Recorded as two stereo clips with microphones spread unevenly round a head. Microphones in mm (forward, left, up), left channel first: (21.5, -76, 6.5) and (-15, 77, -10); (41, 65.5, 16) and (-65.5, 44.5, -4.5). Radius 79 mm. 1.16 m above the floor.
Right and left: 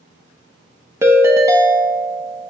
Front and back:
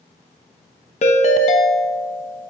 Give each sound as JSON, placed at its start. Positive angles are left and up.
{"t": 1.0, "sound": "a ringtone", "azimuth_deg": 30, "distance_m": 1.2}